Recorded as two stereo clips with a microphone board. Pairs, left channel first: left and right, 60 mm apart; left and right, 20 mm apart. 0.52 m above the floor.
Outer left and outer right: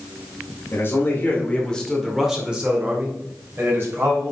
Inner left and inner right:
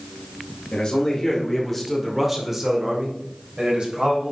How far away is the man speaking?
About 2 m.